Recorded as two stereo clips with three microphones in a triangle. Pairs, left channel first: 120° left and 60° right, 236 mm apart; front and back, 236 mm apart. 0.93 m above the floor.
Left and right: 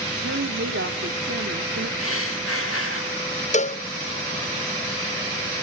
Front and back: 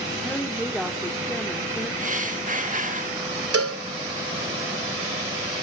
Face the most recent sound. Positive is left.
turn(degrees=-175)